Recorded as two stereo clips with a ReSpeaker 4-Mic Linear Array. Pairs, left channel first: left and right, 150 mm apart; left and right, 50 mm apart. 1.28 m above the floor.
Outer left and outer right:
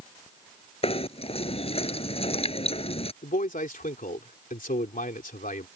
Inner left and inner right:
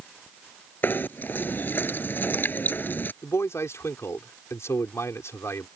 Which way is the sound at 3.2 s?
65° left (ahead or behind).